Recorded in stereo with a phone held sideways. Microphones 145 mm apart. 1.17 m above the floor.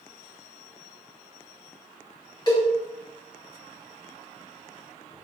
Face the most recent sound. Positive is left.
turn(degrees=30)  # may be behind; listen again after turning